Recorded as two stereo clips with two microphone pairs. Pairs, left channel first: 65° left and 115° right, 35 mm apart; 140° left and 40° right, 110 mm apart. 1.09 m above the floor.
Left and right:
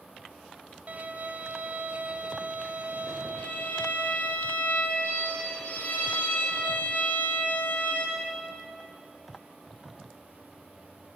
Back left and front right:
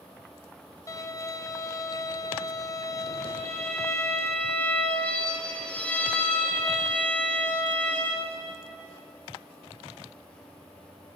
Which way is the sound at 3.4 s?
65° left.